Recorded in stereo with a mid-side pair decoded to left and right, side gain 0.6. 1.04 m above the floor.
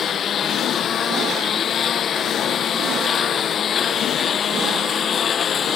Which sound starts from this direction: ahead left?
A lawn mower, at 0.0 s.